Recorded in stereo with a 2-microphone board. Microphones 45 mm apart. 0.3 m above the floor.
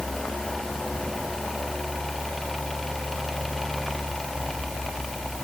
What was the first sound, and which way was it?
Only background noise.